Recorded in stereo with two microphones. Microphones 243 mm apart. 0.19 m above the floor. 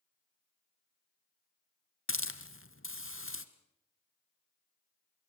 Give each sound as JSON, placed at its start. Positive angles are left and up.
{"t": 2.1, "sound": "a hiss", "side_deg": 60, "distance_m": 1.4}